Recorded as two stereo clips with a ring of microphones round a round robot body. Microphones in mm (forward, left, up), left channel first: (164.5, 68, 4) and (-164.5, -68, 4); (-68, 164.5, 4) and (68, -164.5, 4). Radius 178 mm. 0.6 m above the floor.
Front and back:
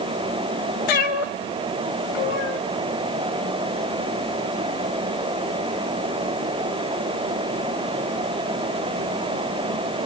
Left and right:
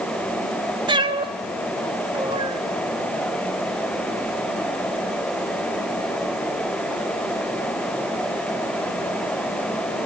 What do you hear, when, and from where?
0.9 s a cat meowing: 10° left, 1.0 m